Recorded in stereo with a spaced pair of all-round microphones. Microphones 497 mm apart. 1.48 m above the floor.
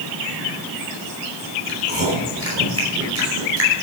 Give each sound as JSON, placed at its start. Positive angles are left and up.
{"t": 1.7, "sound": "chewing", "side_deg": -30, "distance_m": 5.0}